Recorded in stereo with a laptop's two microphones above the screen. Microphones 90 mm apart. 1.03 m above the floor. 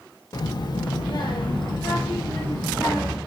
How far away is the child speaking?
About 0.5 m.